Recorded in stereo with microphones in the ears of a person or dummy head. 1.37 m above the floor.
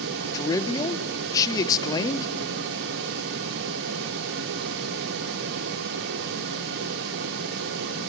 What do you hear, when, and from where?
0.3 s a man speaking: 15° left (ahead or behind), 0.9 m